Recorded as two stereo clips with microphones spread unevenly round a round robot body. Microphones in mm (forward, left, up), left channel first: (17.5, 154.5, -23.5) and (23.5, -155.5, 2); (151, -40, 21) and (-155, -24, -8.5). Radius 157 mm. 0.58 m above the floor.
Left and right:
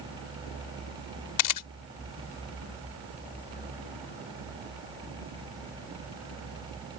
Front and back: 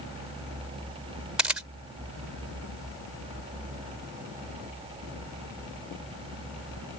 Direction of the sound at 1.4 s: 90° left.